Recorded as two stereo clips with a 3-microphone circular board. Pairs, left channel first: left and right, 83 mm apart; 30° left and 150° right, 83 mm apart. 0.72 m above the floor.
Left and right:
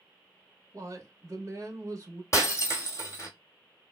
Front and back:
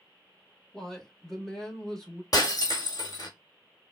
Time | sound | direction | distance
0.7 | a woman speaking | 55° right | 1.3 m
2.3 | breaking glass | 50° left | 1.2 m